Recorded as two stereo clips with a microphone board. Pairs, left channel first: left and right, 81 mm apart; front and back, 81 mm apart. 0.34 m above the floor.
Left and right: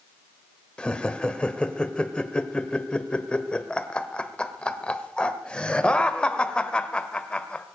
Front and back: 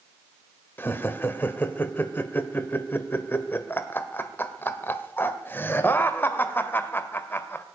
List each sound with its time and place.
0.8 s laughter: 25° left, 1.4 m